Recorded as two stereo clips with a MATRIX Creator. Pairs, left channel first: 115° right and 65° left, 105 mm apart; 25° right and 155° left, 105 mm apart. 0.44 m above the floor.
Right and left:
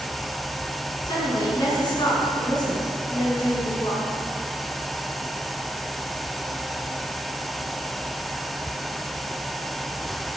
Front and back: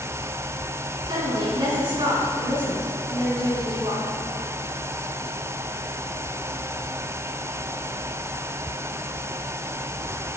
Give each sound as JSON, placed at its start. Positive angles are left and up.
{"t": 1.1, "sound": "a woman speaking", "azimuth_deg": -160, "distance_m": 5.5}